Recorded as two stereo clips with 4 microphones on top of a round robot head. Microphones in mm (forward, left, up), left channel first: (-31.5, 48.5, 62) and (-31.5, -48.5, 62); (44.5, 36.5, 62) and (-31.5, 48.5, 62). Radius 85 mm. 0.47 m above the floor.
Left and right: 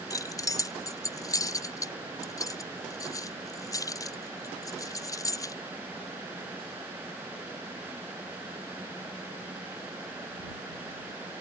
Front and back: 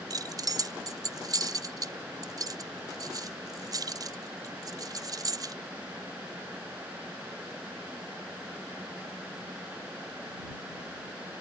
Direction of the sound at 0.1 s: 140° left.